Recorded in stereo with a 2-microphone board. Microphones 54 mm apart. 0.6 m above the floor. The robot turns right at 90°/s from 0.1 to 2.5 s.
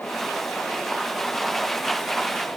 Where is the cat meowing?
I don't hear a cat meowing.